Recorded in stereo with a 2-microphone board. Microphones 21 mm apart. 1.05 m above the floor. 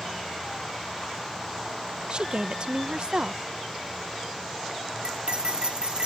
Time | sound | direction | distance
2.1 | a woman speaking | 50° right (ahead or behind) | ?
5.0 | cutlery clinking | 45° right (ahead or behind) | ?